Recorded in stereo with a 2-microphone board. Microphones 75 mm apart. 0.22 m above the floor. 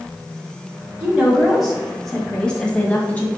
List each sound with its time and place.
1.0 s a woman speaking: 10° right (ahead or behind), 1.7 m; by 3.3 s 20° left (ahead or behind), 1.9 m